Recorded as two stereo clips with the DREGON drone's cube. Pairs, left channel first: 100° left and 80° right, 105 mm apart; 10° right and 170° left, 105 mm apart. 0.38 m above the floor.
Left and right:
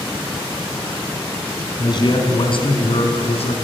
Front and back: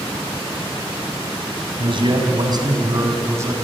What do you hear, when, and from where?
1.8 s a man speaking: 140° left, 3.5 m; by 3.6 s 105° left, 4 m